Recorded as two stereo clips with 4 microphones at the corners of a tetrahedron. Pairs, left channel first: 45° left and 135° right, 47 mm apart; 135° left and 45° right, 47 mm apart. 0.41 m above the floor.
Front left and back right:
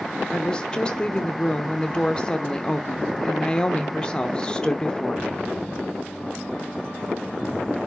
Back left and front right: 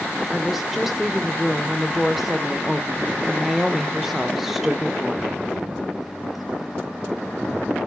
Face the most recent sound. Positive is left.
turn(degrees=30)